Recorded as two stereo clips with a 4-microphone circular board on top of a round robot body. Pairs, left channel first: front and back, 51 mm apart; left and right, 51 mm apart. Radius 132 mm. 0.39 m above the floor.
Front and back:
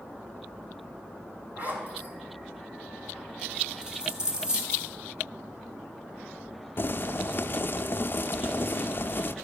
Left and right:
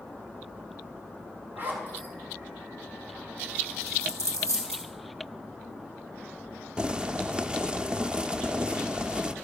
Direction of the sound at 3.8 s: 110° right.